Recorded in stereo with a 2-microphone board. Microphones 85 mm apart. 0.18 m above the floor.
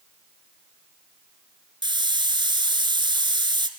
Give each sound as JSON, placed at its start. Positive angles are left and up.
{"t": 1.8, "sound": "a hiss", "side_deg": -60, "distance_m": 1.7}